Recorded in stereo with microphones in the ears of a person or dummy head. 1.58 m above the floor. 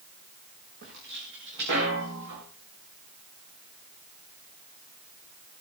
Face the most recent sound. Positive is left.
turn(degrees=-65)  # may be behind; listen again after turning